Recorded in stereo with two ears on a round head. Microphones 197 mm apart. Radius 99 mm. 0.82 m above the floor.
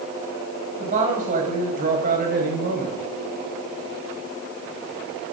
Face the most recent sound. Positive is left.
turn(degrees=-45)  # may be behind; listen again after turning